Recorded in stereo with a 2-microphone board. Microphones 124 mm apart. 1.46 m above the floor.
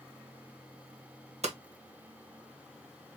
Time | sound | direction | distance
1.4 | hammering | 70° right (ahead or behind) | 1.1 m